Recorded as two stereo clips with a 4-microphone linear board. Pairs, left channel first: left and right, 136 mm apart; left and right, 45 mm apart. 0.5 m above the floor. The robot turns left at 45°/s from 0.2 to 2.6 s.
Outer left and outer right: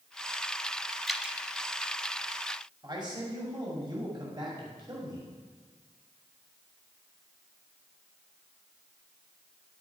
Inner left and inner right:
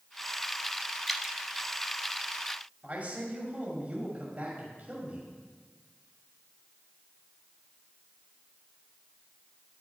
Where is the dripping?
Centre (ahead or behind), 0.7 m; by 1.4 s 10° right (ahead or behind), 0.7 m.